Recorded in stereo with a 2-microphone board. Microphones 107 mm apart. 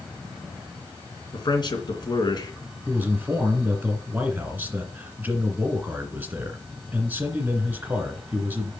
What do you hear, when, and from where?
1.3 s a man speaking: 50° left (ahead or behind), 3 m
2.9 s a man speaking: 20° right (ahead or behind), 2.0 m